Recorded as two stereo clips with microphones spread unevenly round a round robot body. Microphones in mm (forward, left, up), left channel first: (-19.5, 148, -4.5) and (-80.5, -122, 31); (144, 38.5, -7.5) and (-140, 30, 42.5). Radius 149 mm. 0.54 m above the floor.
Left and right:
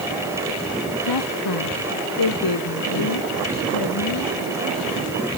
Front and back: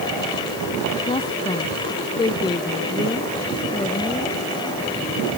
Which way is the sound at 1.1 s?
75° left.